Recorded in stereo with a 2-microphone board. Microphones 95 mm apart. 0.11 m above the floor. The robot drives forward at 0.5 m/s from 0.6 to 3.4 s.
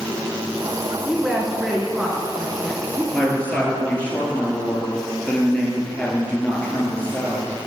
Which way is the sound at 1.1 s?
5° right (ahead or behind).